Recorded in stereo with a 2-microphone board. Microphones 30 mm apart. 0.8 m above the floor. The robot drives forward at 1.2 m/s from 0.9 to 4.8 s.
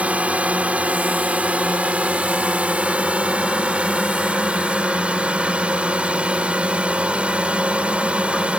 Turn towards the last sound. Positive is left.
turn(degrees=-40)  # may be behind; listen again after turning